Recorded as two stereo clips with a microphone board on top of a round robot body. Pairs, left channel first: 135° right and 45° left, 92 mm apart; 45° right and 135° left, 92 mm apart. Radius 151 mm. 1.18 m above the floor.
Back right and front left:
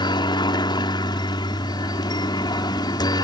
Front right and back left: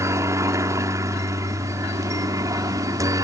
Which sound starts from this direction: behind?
A helicopter, at 0.0 s.